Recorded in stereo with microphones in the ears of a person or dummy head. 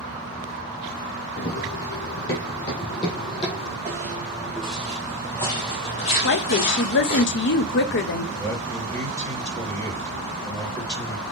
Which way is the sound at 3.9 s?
15° right (ahead or behind).